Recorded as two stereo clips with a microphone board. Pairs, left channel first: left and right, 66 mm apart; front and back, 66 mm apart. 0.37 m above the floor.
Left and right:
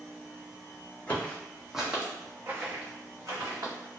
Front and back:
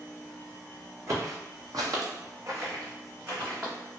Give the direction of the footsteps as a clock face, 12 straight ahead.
7 o'clock.